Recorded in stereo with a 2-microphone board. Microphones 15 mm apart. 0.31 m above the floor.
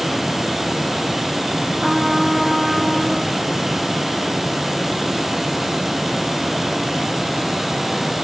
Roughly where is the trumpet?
Right.